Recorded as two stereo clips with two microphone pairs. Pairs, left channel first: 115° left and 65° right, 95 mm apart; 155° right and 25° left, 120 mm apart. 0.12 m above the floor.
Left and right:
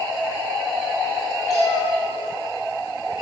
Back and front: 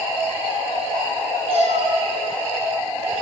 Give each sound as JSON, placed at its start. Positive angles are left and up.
{"t": 1.5, "sound": "a cat meowing", "azimuth_deg": 60, "distance_m": 4.0}